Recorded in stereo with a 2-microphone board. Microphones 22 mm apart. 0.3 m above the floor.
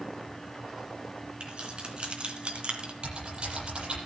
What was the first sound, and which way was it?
Keys jangling, 45° right (ahead or behind).